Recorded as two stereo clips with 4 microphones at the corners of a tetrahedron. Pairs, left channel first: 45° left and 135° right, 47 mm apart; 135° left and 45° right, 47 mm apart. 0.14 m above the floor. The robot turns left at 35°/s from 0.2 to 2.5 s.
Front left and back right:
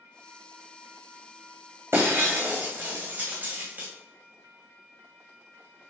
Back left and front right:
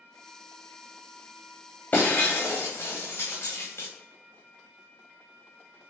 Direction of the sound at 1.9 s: 170° right.